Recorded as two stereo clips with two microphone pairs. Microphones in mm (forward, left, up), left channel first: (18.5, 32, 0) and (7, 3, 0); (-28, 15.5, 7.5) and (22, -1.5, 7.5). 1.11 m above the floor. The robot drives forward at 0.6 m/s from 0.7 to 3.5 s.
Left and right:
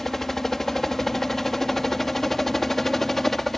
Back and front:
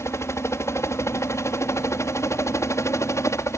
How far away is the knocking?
No knocking in this recording.